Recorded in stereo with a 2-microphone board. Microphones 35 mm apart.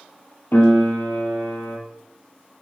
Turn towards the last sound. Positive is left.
turn(degrees=70)  # may be behind; listen again after turning